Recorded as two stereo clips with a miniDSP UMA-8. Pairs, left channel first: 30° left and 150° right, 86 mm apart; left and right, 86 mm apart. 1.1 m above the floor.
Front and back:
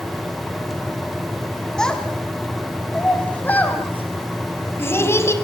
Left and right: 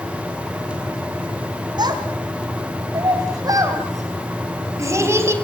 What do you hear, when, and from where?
1.8 s a child speaking: 50° right, 4.5 m; by 5.3 s 30° right, 4 m